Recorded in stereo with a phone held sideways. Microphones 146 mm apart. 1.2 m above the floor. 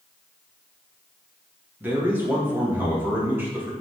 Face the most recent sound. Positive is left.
turn(degrees=-15)  # may be behind; listen again after turning